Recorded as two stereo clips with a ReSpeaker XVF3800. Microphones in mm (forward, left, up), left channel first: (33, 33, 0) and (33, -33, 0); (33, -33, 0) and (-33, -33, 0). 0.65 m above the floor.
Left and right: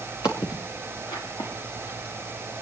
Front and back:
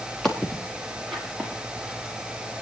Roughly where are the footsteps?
Left.